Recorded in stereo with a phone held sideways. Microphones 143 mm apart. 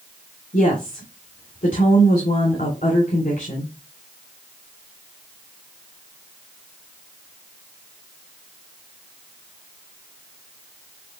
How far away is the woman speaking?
About 3 m.